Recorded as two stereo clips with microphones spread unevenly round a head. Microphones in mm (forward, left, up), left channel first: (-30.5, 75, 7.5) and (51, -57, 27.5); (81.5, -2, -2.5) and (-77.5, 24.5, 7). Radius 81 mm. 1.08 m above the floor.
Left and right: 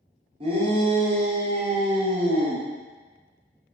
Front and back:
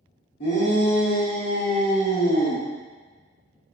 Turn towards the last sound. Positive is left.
turn(degrees=-20)